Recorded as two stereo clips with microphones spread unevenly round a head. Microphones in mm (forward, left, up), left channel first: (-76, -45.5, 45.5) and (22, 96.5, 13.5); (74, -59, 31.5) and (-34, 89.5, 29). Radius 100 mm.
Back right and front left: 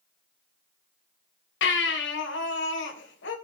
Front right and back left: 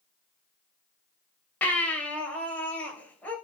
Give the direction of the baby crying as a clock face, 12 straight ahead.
5 o'clock.